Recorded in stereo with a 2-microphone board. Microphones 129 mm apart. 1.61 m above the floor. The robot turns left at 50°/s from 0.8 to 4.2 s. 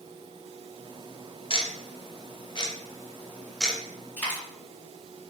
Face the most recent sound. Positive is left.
turn(degrees=15)  # may be behind; listen again after turning